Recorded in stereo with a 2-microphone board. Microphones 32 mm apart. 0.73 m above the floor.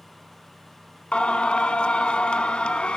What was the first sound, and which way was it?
Singing, 35° left (ahead or behind).